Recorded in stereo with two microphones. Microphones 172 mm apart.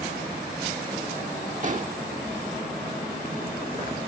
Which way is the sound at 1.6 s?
45° right (ahead or behind).